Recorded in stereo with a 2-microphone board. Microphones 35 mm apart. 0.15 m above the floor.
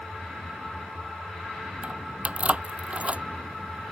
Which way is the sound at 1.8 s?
40° right (ahead or behind).